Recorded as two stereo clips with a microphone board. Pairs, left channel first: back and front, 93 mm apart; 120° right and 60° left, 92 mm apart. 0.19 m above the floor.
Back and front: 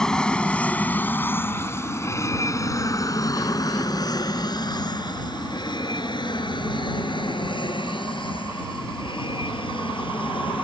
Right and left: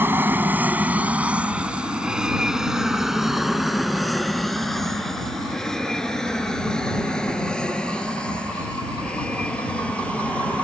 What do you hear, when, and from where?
0.0 s an aircraft: 105° left; by 10.7 s 165° left